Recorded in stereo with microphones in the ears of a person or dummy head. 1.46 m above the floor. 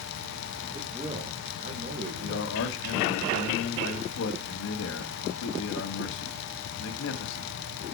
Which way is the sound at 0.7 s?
20° right (ahead or behind).